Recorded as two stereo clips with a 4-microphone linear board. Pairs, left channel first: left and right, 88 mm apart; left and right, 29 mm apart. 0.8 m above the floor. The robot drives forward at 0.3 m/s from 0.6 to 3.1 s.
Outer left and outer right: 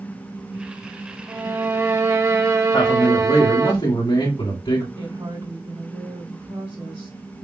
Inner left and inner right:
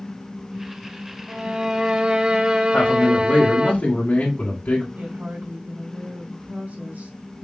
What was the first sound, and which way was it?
A violin, 30° right (ahead or behind).